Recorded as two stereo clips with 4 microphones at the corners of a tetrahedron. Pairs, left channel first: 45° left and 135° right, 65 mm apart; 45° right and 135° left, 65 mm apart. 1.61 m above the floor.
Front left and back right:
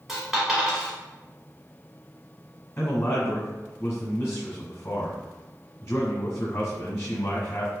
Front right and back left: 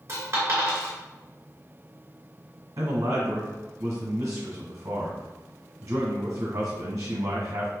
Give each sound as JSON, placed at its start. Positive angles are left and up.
{"t": 0.1, "sound": "a dropped coin", "azimuth_deg": 145, "distance_m": 1.7}
{"t": 2.8, "sound": "a man speaking", "azimuth_deg": 105, "distance_m": 1.2}